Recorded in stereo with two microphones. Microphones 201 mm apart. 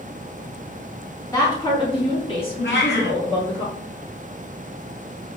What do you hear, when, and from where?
1.3 s a woman speaking: 20° left (ahead or behind), 1.2 m; by 3.6 s 35° left (ahead or behind), 2 m
2.6 s a cat meowing: 70° left (ahead or behind), 0.8 m